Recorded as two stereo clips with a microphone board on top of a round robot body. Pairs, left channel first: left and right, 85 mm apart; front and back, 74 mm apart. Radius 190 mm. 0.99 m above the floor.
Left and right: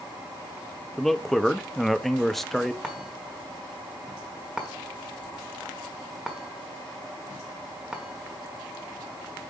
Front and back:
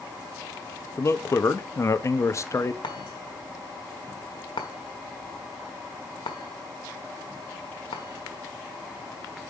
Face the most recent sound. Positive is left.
turn(degrees=-10)